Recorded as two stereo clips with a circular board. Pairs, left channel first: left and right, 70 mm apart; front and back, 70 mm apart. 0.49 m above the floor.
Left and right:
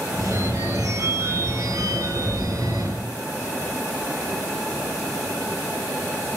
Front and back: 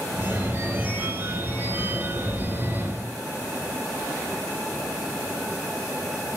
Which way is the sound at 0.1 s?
120° right.